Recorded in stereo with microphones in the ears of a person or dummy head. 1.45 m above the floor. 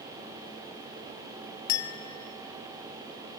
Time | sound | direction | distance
1.7 | a clink | 55° left (ahead or behind) | 0.7 m